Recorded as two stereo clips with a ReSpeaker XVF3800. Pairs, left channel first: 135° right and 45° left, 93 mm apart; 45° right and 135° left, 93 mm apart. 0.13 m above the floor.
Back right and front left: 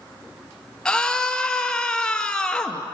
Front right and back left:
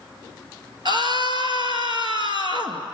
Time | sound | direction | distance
0.8 | a scream | 145° left | 2 m